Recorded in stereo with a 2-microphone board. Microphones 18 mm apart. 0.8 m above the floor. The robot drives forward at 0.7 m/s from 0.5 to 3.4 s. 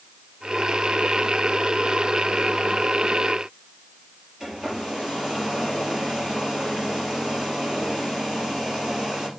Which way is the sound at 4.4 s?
30° right (ahead or behind).